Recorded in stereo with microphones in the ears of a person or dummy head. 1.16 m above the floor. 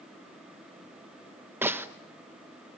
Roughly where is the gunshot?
Centre.